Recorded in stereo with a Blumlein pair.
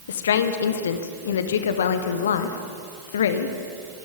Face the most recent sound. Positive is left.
turn(degrees=65)